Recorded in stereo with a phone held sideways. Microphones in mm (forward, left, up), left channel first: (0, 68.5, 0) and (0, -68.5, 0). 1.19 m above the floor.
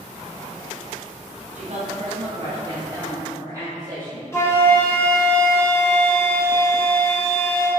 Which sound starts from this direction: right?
A woman speaking, at 1.6 s.